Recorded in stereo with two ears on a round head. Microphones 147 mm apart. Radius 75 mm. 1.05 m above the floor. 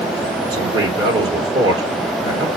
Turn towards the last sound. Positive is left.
turn(degrees=-25)  # may be behind; listen again after turning